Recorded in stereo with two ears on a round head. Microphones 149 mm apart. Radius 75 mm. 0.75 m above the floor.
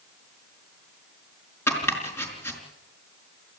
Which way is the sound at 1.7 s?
15° left (ahead or behind).